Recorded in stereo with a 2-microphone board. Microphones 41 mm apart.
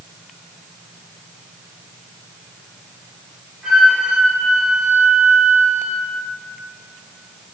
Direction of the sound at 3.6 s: 10° right (ahead or behind).